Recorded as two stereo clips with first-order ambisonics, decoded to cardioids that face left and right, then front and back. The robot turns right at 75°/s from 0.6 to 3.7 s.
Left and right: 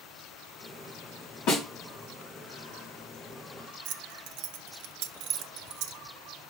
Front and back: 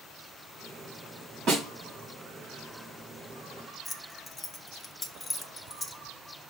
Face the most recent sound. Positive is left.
turn(degrees=-70)